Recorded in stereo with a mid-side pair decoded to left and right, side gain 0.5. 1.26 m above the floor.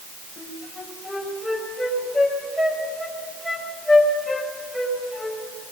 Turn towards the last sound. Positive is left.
turn(degrees=5)